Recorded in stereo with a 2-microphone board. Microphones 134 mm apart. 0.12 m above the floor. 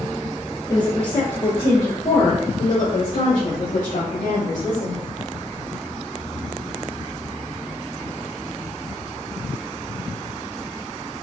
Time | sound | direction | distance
0.7 | a woman speaking | 30° left (ahead or behind) | 1.2 m